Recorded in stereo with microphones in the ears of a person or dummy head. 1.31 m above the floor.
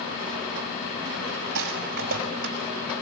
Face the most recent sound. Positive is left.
turn(degrees=-55)  # may be behind; listen again after turning